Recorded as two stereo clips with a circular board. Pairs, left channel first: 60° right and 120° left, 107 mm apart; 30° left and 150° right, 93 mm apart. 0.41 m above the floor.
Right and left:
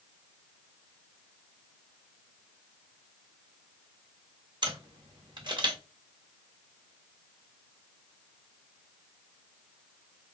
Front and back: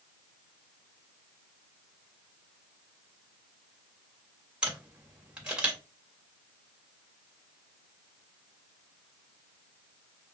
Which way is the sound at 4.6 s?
135° left.